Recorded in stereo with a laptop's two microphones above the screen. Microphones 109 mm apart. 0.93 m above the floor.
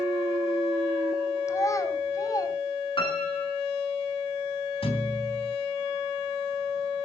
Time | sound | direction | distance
1.5 | a child speaking | 25° left (ahead or behind) | 3 m
3.0 | a piano | 50° left (ahead or behind) | 8.5 m
4.8 | a thud | 55° left (ahead or behind) | 3.5 m